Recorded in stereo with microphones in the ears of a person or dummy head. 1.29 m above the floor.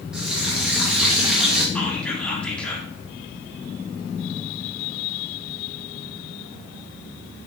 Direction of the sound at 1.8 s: 10° left (ahead or behind).